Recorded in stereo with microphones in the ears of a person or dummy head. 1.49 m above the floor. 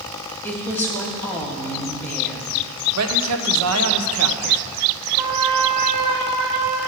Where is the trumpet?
Centre (ahead or behind), 3.5 m.